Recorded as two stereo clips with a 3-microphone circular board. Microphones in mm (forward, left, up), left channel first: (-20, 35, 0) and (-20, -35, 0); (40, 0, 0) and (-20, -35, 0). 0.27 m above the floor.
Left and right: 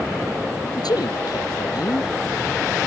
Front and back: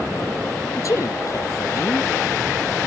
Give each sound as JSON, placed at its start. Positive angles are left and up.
{"t": 0.8, "sound": "a man speaking", "azimuth_deg": 70}